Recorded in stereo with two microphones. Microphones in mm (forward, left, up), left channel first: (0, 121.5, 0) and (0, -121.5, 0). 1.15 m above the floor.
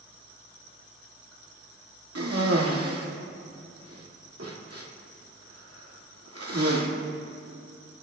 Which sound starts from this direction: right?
A cough, at 2.1 s.